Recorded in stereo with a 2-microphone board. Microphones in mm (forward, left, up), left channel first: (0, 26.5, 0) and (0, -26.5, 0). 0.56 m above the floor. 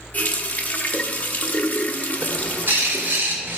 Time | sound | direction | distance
0.1 | a running tap | 30° left (ahead or behind) | 0.7 m
2.2 | a bird | 50° right (ahead or behind) | 1.5 m